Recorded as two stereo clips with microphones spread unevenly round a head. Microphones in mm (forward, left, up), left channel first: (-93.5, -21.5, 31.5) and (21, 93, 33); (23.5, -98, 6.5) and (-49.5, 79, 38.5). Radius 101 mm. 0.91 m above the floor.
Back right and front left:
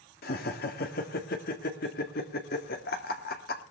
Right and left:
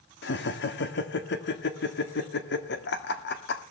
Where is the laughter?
95° right, 1.7 m.